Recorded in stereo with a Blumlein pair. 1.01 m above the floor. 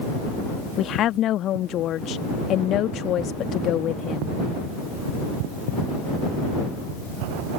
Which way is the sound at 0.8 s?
30° left.